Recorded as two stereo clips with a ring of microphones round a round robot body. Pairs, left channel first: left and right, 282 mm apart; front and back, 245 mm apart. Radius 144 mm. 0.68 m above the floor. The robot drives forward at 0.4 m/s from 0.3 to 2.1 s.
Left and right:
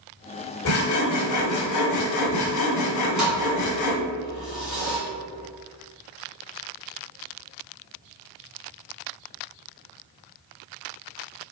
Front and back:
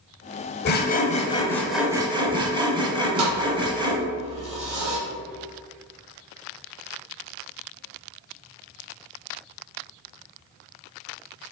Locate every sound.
0.7 s sawing: 45° left, 0.7 m; by 4.0 s 110° left, 0.6 m
3.2 s a thud: straight behind, 1.8 m